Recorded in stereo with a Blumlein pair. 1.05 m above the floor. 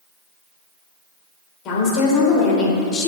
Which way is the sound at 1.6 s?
40° left.